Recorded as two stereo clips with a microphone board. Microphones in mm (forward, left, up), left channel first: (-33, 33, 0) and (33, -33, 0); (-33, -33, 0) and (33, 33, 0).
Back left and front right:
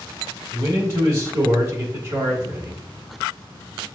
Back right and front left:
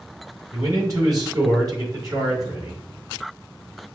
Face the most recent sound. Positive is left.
turn(degrees=5)